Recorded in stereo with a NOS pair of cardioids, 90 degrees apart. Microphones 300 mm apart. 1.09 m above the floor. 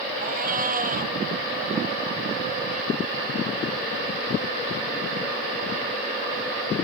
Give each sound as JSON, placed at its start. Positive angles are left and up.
{"t": 0.2, "sound": "a cat meowing", "azimuth_deg": -30}